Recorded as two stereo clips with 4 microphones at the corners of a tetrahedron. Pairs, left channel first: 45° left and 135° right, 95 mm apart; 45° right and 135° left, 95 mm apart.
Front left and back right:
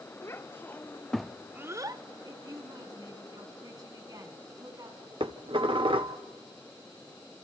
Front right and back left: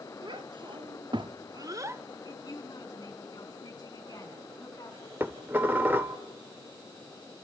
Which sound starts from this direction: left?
A child speaking, at 0.2 s.